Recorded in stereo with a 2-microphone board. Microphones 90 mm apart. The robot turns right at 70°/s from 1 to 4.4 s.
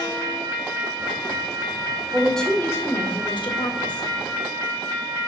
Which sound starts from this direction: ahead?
A woman speaking, at 2.1 s.